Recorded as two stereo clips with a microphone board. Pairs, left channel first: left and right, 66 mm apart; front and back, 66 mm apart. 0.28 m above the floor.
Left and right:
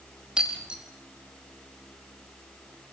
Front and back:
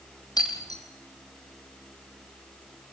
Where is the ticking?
No ticking in this recording.